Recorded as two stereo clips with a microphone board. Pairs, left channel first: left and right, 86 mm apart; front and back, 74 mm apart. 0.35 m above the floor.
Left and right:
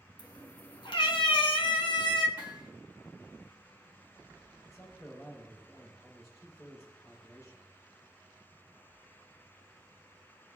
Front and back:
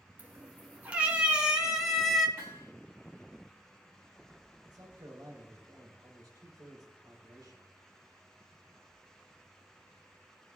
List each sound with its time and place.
0.2 s a cat meowing: 115° left, 2.5 m; by 2.3 s 90° left, 1.9 m
2.4 s hammering: 120° left, 4.5 m
4.7 s a man speaking: 145° left, 4 m